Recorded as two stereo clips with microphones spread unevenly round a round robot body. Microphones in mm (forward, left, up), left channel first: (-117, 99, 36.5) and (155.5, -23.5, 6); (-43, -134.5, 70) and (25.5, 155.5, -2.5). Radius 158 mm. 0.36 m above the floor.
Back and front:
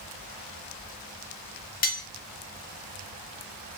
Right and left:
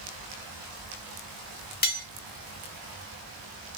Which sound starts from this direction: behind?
Cutlery clinking, at 1.8 s.